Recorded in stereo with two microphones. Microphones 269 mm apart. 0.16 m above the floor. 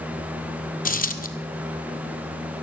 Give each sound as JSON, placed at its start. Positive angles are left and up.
{"t": 0.8, "sound": "a dropped coin", "side_deg": 30, "distance_m": 1.0}